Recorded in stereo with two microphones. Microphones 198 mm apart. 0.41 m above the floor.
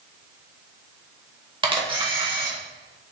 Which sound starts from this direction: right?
A camera shutter, at 1.6 s.